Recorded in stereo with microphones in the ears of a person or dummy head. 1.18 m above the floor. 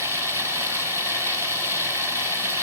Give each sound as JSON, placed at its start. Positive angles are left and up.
{"t": 0.0, "sound": "running water", "side_deg": -15, "distance_m": 3.5}